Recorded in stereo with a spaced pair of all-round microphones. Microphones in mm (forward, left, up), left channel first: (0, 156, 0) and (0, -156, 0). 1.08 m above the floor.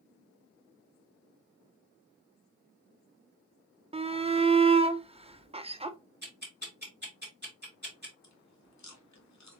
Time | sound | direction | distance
3.9 | a shout | 20° right (ahead or behind) | 0.6 m
6.2 | ticking | 35° right (ahead or behind) | 2 m
8.2 | chewing | 60° left (ahead or behind) | 0.8 m